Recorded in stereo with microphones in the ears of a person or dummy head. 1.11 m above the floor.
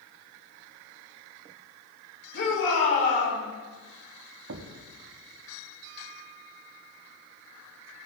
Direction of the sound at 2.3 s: 60° left (ahead or behind).